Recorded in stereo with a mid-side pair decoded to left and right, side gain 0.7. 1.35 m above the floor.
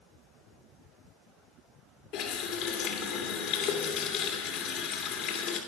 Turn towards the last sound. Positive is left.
turn(degrees=65)